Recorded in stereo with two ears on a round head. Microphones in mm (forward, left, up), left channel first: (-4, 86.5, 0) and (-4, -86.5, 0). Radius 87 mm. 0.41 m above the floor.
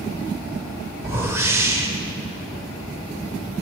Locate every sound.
1.0 s a whoosh: 15° right (ahead or behind), 0.6 m